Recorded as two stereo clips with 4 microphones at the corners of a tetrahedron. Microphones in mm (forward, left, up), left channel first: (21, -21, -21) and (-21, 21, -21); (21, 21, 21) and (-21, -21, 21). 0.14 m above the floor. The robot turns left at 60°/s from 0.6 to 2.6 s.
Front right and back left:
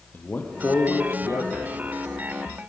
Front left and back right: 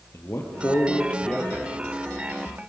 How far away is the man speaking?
About 4 m.